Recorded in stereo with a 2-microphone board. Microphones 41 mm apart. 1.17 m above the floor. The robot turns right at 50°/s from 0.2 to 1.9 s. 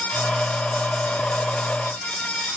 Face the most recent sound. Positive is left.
No sound to turn to.